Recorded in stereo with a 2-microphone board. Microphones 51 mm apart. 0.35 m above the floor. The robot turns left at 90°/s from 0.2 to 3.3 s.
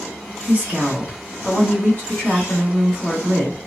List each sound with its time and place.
0.5 s a woman speaking: 115° right, 1.6 m; by 3.6 s 10° right, 1.6 m